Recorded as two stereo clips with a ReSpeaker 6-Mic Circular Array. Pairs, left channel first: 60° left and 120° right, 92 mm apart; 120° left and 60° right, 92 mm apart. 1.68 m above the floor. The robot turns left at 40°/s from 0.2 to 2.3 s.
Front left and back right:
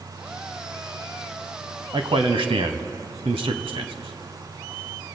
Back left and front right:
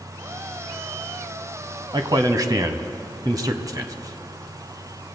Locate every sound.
1.9 s a man speaking: 95° right, 1.1 m; by 5.1 s 110° right, 1.1 m